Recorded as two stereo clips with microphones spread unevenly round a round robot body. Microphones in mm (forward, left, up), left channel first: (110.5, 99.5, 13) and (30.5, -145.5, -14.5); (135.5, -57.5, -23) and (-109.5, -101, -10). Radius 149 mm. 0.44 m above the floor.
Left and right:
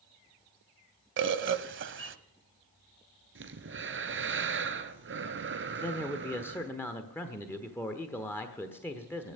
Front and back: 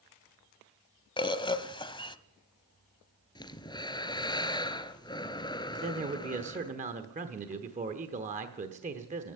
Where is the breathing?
65° right, 1.1 m.